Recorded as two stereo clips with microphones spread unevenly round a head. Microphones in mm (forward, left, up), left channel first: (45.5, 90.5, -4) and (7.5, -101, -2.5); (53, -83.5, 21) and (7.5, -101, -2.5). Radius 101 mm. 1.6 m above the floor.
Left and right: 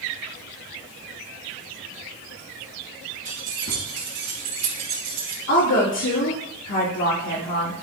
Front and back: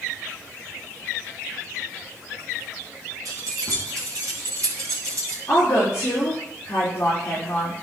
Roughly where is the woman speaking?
Left.